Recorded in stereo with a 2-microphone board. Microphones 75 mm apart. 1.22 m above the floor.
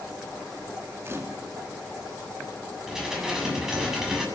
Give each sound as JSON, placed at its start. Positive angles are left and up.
{"t": 1.1, "sound": "a camera shutter", "side_deg": -35, "distance_m": 2.5}
{"t": 2.9, "sound": "dishes clattering", "side_deg": -10, "distance_m": 7.0}